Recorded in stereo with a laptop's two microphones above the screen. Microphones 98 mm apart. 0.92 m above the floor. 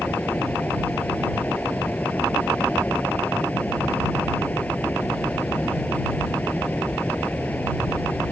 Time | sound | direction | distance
0.0 | a fan | 15° left (ahead or behind) | ?